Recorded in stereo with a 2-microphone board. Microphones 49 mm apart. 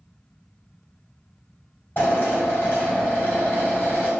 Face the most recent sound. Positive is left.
turn(degrees=45)  # may be behind; listen again after turning